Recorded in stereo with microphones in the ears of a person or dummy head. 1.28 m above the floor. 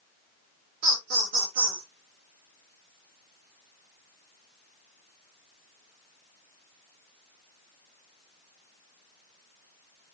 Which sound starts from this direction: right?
Laughter, at 0.8 s.